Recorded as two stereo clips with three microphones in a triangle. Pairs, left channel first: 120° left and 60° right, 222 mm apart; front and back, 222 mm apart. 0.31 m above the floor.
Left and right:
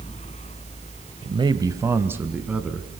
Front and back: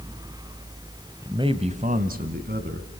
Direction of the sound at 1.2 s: 115° right.